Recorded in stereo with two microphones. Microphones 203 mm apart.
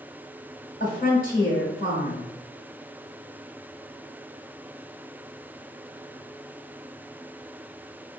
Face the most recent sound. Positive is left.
turn(degrees=40)  # may be behind; listen again after turning